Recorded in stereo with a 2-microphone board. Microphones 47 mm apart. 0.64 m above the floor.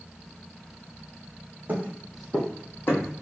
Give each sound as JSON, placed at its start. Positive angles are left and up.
{"t": 1.7, "sound": "footsteps", "side_deg": -35, "distance_m": 1.3}